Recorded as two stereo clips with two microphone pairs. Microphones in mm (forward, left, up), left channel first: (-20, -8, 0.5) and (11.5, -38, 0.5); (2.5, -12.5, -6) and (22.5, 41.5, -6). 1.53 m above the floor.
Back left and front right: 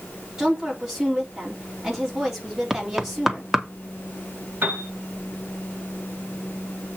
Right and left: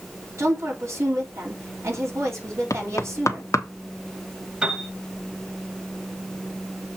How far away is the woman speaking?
About 3.5 m.